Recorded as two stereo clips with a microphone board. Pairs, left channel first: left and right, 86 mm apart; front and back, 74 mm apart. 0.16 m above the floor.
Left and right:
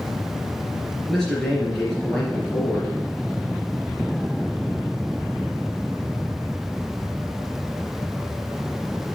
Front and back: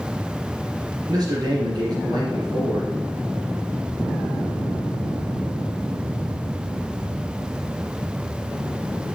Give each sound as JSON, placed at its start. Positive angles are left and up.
{"t": 1.1, "sound": "a man speaking", "azimuth_deg": 175, "distance_m": 3.0}